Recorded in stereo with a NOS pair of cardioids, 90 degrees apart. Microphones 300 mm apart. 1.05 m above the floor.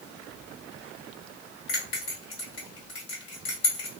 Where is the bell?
55° left, 1.6 m.